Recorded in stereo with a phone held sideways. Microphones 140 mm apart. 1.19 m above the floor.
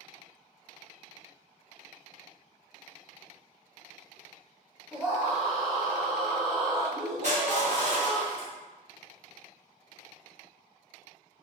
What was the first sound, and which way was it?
A scream, 5° right (ahead or behind).